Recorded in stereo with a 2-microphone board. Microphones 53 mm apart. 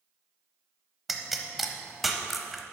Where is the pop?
Centre (ahead or behind), 0.8 m.